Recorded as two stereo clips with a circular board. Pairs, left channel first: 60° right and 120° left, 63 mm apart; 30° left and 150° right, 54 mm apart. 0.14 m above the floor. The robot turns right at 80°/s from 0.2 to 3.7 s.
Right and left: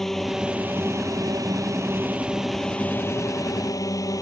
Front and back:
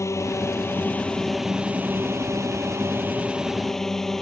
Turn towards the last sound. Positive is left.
turn(degrees=-55)